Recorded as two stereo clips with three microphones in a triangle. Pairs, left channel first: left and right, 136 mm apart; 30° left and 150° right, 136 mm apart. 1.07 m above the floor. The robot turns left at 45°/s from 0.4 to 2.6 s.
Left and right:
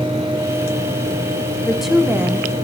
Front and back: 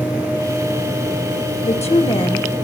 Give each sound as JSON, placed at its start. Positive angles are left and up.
{"t": 1.6, "sound": "a woman speaking", "azimuth_deg": 5, "distance_m": 1.3}